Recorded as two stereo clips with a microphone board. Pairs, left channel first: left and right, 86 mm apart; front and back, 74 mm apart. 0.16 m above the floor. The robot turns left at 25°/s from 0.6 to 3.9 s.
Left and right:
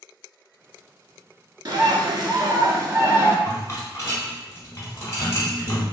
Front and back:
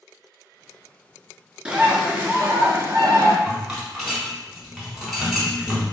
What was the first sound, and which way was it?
A bird, 105° right.